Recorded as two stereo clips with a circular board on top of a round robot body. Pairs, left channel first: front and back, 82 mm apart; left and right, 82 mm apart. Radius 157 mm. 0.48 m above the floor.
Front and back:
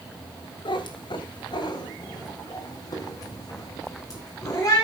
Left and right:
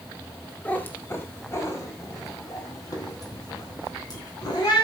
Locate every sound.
0.7 s a cat meowing: 15° left, 1.6 m; by 4.8 s 50° left, 4.5 m